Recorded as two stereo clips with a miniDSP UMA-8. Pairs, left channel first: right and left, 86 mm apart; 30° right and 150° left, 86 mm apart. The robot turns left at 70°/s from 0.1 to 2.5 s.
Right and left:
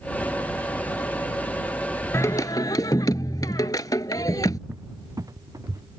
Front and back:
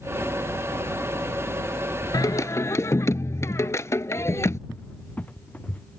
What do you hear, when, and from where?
2.1 s singing: 50° right; by 4.6 s 75° right
4.7 s a cupboard door: 40° left